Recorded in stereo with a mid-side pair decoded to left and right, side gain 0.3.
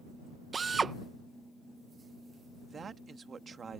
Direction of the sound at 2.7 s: 60° right.